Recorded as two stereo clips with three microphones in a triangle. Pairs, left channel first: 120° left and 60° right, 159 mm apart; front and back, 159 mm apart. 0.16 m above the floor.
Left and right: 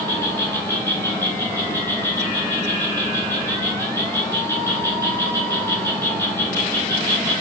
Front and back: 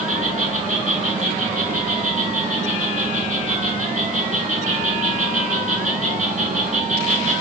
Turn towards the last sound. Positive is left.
turn(degrees=-170)